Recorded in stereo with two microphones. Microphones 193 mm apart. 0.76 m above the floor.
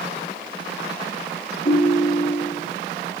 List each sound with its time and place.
1.6 s a ringtone: 45° left (ahead or behind), 5 m